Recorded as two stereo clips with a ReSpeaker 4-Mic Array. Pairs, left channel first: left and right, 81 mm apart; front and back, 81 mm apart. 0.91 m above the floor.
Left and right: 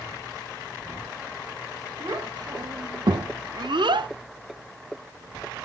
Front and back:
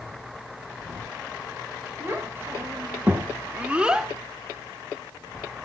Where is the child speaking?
120° right, 2.0 m; by 4.1 s 95° right, 0.7 m.